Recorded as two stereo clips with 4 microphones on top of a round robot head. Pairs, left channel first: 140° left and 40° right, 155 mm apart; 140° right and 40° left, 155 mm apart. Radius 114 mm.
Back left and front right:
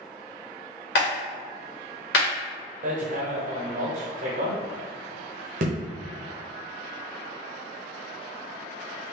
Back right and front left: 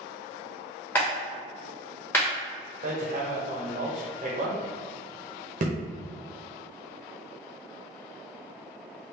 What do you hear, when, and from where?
0.9 s a clap: 140° left, 1.4 m
2.8 s hammering: straight ahead, 0.7 m